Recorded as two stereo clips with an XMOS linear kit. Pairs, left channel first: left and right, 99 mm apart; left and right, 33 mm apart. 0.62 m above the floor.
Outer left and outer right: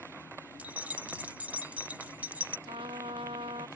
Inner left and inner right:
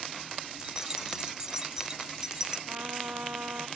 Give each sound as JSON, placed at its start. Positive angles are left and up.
{"t": 0.6, "sound": "keys jangling", "side_deg": -15}
{"t": 2.7, "sound": "a trumpet", "side_deg": -70}